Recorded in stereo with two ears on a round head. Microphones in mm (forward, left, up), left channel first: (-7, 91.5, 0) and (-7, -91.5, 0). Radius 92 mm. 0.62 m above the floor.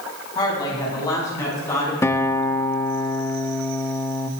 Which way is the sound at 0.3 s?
20° left (ahead or behind).